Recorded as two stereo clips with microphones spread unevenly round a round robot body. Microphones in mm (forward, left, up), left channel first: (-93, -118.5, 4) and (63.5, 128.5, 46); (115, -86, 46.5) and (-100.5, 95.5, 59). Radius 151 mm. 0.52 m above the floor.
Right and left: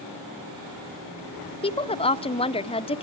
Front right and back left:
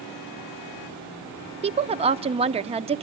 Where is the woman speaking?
165° right, 0.7 m.